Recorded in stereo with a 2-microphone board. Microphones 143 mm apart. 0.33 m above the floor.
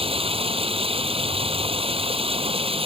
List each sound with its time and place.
0.0 s running water: 40° right (ahead or behind)